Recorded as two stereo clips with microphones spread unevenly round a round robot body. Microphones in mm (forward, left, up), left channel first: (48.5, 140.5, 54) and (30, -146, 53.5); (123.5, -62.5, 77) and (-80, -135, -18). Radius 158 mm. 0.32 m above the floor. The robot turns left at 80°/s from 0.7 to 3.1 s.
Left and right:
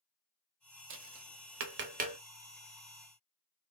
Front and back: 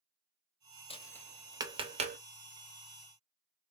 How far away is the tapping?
About 1.0 m.